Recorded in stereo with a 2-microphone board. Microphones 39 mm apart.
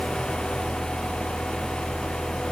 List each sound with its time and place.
Only background noise.